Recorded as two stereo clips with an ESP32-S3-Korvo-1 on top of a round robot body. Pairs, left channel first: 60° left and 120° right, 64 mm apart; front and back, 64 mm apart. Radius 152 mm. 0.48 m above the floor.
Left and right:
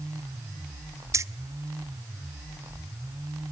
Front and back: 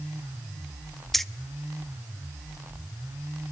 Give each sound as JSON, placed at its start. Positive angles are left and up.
{"t": 1.1, "sound": "keys jangling", "azimuth_deg": -85, "distance_m": 0.8}